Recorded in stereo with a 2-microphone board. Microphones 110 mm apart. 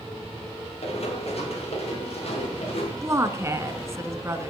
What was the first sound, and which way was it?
Running footsteps, 65° left (ahead or behind).